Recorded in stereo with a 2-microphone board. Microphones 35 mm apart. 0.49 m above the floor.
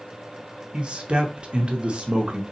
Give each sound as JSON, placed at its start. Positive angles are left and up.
{"t": 0.7, "sound": "a man speaking", "side_deg": -35, "distance_m": 0.8}